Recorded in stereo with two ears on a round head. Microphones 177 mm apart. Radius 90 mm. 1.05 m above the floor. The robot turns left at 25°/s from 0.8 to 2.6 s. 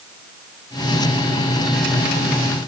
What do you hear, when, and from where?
Only background noise.